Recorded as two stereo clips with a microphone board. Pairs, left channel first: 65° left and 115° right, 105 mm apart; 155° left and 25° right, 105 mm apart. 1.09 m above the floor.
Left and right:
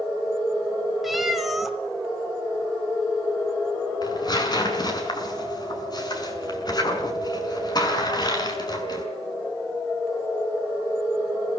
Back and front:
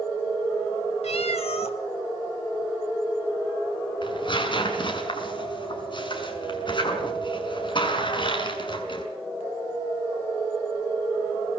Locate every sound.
1.0 s a cat meowing: 160° left, 2.5 m
4.0 s tearing paper: 115° left, 6 m